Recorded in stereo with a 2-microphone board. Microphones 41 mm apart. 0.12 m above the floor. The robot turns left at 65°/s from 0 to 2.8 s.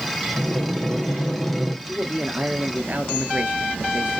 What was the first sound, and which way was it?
Breathing, 90° right.